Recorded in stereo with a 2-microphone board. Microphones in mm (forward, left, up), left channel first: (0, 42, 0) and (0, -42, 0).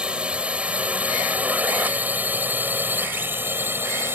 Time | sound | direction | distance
0.0 | a drone | 15° right (ahead or behind) | ?